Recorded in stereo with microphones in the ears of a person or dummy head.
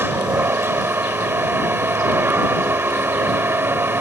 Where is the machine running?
10° right (ahead or behind).